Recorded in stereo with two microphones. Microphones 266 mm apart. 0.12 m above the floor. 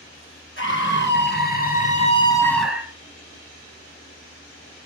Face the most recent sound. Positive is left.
turn(degrees=-15)  # may be behind; listen again after turning